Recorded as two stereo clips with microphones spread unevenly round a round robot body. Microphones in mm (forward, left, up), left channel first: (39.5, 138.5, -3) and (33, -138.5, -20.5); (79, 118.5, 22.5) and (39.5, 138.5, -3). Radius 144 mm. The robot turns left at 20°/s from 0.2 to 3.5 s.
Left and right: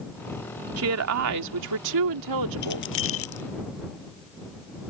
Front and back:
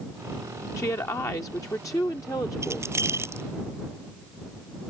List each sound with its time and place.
0.8 s a woman speaking: 50° right; by 2.9 s 95° right
2.6 s keys jangling: 145° left; by 3.4 s 130° left